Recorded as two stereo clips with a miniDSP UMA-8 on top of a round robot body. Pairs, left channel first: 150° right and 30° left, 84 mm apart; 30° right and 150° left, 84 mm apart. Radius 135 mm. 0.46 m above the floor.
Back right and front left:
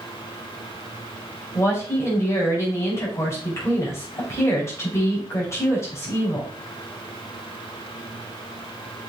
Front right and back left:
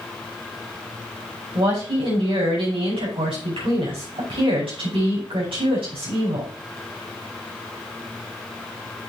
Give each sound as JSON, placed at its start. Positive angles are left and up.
{"t": 1.6, "sound": "a woman speaking", "azimuth_deg": 150, "distance_m": 5.0}